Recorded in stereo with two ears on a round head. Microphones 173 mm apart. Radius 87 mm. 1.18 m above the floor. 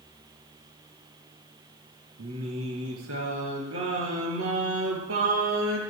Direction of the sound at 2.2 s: 80° right.